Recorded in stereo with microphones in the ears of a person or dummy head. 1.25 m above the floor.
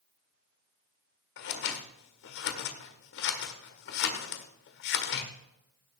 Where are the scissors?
65° left (ahead or behind), 1.5 m.